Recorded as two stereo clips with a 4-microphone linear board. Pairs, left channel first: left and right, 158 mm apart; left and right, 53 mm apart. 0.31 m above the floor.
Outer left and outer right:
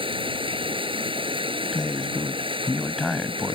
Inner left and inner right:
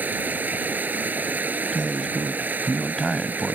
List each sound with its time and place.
0.0 s running water: 35° right (ahead or behind)
1.7 s a man speaking: centre (ahead or behind)